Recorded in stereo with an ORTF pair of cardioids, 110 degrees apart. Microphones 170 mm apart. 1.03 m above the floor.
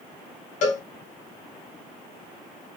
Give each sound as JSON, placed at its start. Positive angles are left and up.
{"t": 0.6, "sound": "a cowbell", "azimuth_deg": 50, "distance_m": 1.6}